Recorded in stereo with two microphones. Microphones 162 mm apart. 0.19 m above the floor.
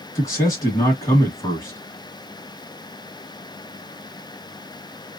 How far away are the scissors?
I don't hear scissors.